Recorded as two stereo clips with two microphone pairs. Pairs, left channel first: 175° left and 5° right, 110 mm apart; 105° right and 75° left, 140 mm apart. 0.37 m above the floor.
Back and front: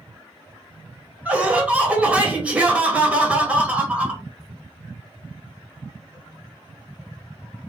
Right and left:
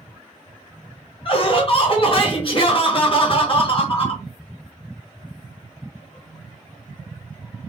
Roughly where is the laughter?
Right.